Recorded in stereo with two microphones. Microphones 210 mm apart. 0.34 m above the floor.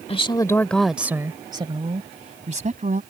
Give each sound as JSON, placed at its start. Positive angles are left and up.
{"t": 0.1, "sound": "a woman speaking", "side_deg": 30}